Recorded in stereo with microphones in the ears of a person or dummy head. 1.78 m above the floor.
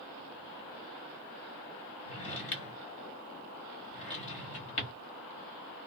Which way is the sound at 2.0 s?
30° left (ahead or behind).